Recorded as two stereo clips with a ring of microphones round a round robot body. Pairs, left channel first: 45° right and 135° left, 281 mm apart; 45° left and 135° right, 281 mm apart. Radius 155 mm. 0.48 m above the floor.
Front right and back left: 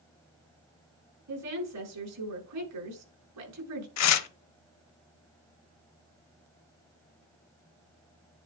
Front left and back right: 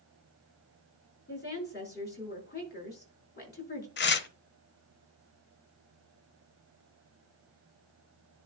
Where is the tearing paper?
10° right, 0.8 m.